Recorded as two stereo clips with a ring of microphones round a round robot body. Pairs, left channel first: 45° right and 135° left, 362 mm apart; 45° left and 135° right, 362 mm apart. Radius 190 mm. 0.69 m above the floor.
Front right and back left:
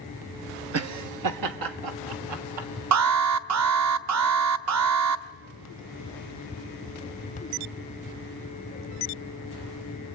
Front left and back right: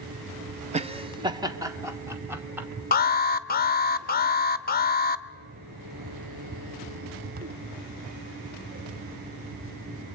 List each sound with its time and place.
0.7 s laughter: 160° left, 1.2 m; by 2.7 s 140° left, 3 m
2.9 s an alarm: 105° left, 1.0 m